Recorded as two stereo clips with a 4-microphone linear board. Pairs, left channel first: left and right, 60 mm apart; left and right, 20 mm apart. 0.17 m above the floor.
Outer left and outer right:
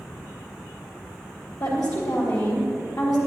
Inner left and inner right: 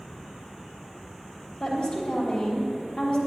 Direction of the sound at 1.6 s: 70° left (ahead or behind).